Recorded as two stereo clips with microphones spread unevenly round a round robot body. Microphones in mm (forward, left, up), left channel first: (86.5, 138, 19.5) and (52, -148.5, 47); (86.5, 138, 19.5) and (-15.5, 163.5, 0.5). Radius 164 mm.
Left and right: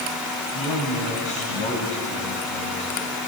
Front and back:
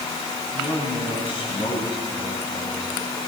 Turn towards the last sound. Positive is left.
turn(degrees=15)